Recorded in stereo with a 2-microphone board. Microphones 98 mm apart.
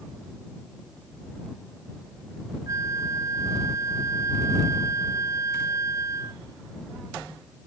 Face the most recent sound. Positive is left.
turn(degrees=-35)  # may be behind; listen again after turning